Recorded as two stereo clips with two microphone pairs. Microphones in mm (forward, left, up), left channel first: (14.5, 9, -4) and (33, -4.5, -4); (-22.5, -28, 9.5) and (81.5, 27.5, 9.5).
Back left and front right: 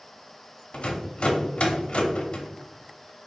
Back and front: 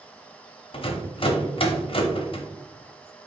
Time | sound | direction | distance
0.7 | a rattle | 175° left | 0.6 m